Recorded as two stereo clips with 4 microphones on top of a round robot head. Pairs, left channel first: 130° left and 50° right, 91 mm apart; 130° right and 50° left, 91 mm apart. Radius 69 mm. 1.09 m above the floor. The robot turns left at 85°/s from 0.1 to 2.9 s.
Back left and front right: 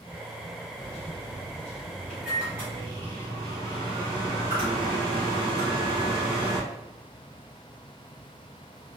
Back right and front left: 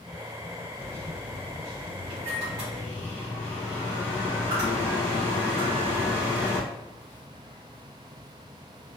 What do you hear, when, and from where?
0.8 s a microwave: 165° left, 2.0 m; by 6.6 s 15° right, 2.0 m